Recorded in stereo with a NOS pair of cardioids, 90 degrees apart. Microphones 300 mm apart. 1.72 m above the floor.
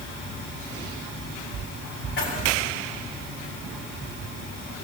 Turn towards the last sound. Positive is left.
turn(degrees=40)